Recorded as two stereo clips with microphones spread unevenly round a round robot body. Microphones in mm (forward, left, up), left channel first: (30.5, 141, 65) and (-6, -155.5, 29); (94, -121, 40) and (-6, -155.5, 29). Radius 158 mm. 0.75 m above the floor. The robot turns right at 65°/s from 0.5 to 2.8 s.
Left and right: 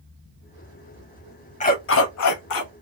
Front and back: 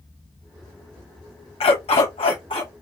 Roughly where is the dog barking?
Ahead.